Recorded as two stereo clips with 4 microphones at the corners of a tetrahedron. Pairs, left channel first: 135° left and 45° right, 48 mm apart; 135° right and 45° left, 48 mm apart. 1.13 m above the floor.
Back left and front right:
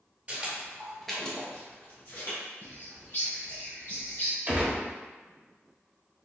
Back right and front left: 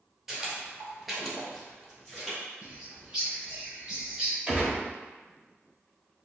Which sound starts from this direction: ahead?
A gunshot, at 4.5 s.